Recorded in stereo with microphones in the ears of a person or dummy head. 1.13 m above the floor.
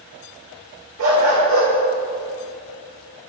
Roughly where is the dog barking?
Right.